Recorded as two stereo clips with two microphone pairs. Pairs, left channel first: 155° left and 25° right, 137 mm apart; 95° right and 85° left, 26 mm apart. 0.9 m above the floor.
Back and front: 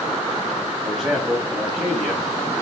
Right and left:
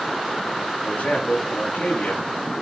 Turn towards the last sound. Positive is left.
turn(degrees=-115)